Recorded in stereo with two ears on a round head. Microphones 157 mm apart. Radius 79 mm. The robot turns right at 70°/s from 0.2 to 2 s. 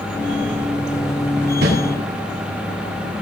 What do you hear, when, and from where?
1.6 s a whoosh: 65° right (ahead or behind), 9.5 m; by 1.7 s 60° right (ahead or behind), 9.5 m